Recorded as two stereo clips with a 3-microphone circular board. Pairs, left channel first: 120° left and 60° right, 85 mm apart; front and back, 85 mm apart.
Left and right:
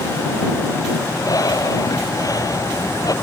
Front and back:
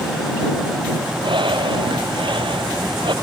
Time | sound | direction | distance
1.2 | breathing | 165° left | ?